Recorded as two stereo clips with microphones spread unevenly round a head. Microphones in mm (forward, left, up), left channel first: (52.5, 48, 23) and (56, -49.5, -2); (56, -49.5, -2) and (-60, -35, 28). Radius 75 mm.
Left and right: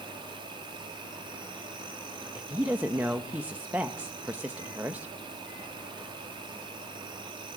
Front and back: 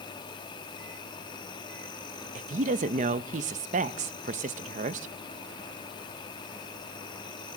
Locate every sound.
0.0 s an insect: 55° right, 2.5 m
2.4 s a woman speaking: 165° right, 0.7 m